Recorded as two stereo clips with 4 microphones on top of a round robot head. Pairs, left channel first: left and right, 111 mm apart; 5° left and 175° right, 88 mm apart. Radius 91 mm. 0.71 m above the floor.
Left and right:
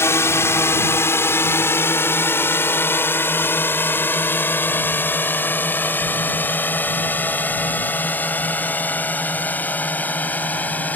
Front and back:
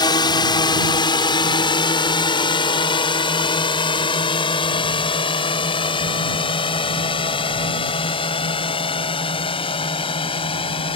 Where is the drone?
25° left; by 11.0 s 15° left.